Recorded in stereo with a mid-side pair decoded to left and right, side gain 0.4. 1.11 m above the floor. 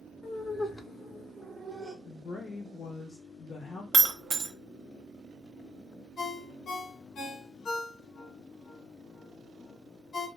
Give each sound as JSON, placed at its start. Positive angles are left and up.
{"t": 0.2, "sound": "laughter", "azimuth_deg": 55, "distance_m": 0.7}
{"t": 2.0, "sound": "a woman speaking", "azimuth_deg": 60, "distance_m": 0.5}
{"t": 3.9, "sound": "breaking glass", "azimuth_deg": -50, "distance_m": 0.6}
{"t": 6.2, "sound": "a ringtone", "azimuth_deg": 65, "distance_m": 1.1}